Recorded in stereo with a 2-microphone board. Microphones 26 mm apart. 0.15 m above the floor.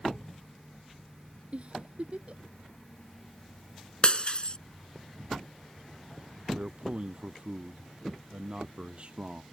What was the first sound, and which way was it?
A giggle, 55° right (ahead or behind).